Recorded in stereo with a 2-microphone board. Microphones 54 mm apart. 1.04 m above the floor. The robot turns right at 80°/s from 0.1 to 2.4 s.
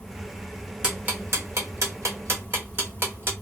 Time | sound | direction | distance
0.8 | ticking | 15° right (ahead or behind) | 1.4 m